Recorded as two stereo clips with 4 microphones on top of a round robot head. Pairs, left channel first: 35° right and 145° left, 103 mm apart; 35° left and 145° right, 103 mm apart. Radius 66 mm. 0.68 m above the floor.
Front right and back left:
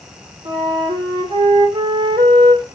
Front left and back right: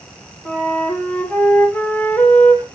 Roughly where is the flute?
Left.